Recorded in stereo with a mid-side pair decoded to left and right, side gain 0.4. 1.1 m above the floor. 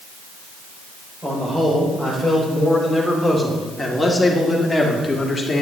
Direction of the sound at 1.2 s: 15° right.